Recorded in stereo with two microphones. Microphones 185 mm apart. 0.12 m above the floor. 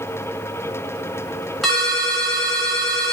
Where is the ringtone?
Centre (ahead or behind), 0.8 m.